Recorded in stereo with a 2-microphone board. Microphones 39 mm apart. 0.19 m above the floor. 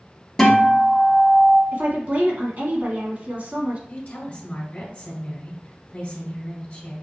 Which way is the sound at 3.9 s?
30° left (ahead or behind).